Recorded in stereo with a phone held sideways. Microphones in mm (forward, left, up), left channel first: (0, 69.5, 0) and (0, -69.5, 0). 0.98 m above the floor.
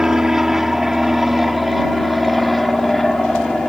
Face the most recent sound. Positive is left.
turn(degrees=0)  # may be behind; listen again after turning